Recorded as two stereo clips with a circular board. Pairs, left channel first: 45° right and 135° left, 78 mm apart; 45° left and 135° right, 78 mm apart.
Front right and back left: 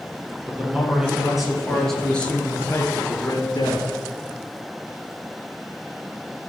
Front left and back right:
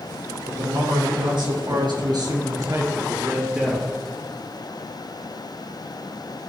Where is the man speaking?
150° right, 4.5 m; by 3.9 s 45° right, 2.5 m.